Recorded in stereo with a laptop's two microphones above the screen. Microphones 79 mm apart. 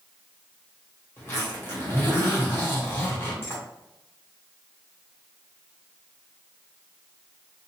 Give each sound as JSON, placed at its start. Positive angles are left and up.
{"t": 1.2, "sound": "a zipper", "side_deg": 30, "distance_m": 1.3}